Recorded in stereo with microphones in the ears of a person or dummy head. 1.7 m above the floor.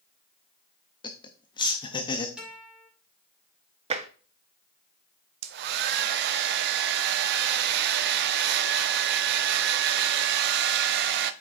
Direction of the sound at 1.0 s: 25° left (ahead or behind).